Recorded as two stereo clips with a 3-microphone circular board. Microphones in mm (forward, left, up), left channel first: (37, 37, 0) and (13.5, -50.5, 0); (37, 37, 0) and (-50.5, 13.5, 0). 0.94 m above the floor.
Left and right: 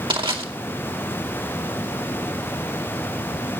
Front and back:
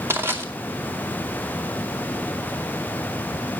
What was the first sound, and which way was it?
Crushing, 105° right.